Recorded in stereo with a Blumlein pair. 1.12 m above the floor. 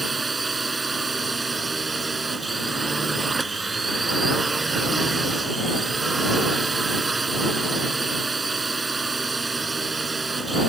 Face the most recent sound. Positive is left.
turn(degrees=-10)